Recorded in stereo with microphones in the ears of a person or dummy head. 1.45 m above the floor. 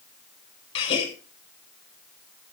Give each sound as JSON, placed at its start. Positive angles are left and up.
{"t": 0.8, "sound": "a gasp", "side_deg": 35, "distance_m": 3.5}